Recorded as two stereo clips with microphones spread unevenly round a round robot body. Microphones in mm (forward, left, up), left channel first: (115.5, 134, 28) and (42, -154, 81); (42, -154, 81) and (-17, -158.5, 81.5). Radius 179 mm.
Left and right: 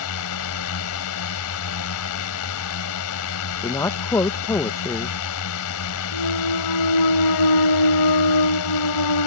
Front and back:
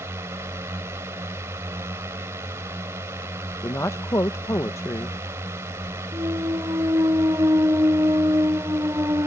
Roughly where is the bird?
No bird in this recording.